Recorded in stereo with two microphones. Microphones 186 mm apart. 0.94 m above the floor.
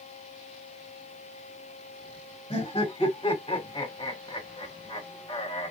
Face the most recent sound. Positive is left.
turn(degrees=30)  # may be behind; listen again after turning